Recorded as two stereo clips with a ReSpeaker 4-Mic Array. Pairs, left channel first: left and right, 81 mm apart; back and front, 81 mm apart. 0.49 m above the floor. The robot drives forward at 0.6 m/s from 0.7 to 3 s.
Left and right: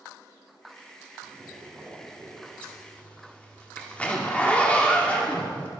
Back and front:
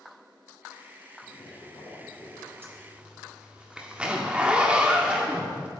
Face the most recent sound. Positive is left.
turn(degrees=50)